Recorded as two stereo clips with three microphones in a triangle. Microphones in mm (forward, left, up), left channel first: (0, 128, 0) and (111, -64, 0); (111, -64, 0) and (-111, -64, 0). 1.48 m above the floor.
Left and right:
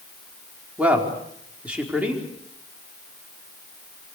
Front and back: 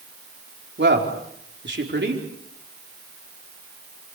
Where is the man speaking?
145° right, 4.5 m.